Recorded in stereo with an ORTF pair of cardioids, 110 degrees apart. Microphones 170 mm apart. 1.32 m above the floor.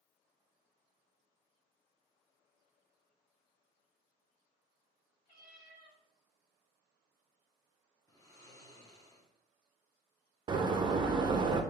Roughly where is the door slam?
Ahead right.